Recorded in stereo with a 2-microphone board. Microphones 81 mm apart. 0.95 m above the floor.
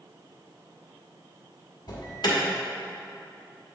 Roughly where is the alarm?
Left.